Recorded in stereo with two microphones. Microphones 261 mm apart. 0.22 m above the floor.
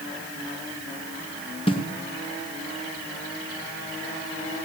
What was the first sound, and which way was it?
A snare drum, 20° left (ahead or behind).